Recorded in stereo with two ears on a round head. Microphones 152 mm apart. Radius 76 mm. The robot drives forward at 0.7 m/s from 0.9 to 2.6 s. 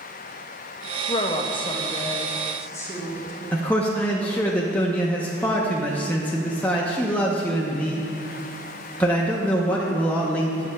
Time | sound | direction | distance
1.1 | a woman speaking | 30° left (ahead or behind) | 0.6 m
3.5 | a man speaking | 10° left (ahead or behind) | 0.6 m